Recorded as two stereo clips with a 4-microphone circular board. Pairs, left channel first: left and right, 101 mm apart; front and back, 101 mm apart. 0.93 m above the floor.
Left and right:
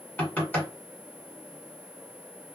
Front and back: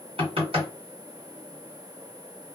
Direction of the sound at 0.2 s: 160° left.